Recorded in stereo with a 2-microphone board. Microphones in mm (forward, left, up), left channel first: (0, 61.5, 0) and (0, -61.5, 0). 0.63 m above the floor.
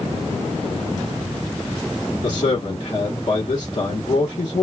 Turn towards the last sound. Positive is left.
turn(degrees=35)  # may be behind; listen again after turning